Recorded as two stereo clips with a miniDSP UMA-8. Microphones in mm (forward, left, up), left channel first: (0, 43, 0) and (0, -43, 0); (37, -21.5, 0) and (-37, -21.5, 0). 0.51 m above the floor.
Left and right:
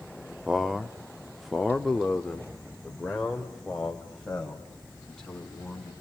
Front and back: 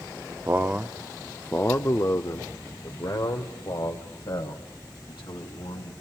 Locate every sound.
0.5 s a man speaking: 170° right, 0.7 m; by 5.9 s 5° left, 3 m